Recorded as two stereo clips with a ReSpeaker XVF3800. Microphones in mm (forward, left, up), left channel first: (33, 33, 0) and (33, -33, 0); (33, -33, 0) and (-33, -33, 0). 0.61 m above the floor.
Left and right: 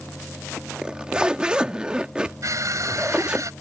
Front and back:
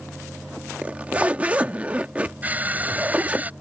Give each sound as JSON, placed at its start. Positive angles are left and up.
{"t": 0.8, "sound": "a zipper", "azimuth_deg": -145}
{"t": 2.4, "sound": "crushing", "azimuth_deg": -115}